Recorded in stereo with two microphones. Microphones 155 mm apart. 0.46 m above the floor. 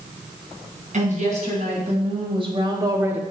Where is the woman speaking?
50° right (ahead or behind), 4 m; by 3.2 s 10° right (ahead or behind), 1.2 m.